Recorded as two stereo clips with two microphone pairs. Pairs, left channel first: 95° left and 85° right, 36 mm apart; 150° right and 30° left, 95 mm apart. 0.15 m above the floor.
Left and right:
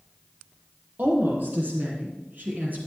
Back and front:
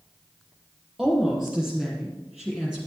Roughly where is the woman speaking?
Ahead right.